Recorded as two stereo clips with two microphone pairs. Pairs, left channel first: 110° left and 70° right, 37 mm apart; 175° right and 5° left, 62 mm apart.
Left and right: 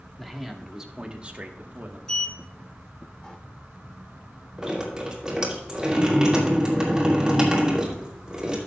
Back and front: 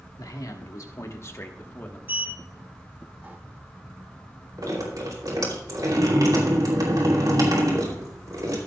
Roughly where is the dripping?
Ahead.